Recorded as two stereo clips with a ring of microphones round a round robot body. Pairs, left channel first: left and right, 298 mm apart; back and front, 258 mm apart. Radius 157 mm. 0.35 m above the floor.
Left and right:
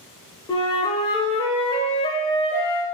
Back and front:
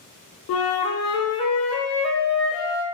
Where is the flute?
160° left, 0.6 m.